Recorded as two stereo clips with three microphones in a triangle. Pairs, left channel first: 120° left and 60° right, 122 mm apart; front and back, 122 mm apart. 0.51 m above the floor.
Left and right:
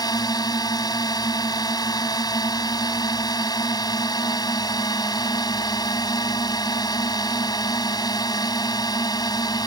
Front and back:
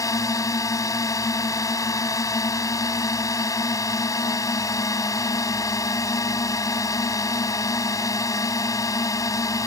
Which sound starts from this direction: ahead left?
A drone, at 0.0 s.